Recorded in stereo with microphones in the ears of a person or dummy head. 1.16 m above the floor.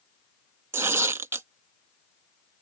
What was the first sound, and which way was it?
Tearing paper, 10° right (ahead or behind).